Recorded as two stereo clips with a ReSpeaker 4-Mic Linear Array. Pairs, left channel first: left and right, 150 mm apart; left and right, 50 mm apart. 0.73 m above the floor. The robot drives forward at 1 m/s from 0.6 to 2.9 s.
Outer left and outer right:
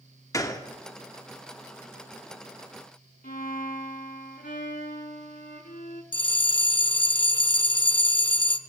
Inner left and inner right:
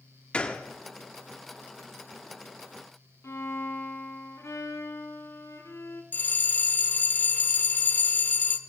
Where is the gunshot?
20° left (ahead or behind), 1.0 m.